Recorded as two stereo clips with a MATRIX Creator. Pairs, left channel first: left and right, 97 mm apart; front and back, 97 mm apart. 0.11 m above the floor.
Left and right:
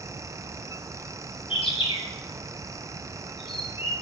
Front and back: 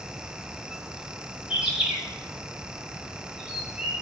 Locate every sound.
1.5 s a bird: 95° left, 8.5 m